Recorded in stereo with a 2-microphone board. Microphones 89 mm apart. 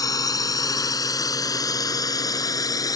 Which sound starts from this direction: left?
A drone, at 0.0 s.